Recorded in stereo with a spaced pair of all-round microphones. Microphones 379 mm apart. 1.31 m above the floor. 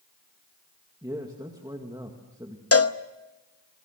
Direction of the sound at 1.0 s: 10° right (ahead or behind).